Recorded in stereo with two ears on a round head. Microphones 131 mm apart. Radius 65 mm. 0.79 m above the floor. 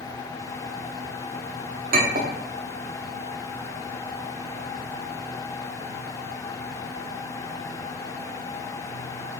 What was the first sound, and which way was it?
A clink, 65° right (ahead or behind).